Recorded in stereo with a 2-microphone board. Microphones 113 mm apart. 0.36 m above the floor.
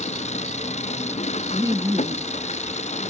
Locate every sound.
0.0 s an engine running: 85° left
1.5 s laughter: 25° right (ahead or behind)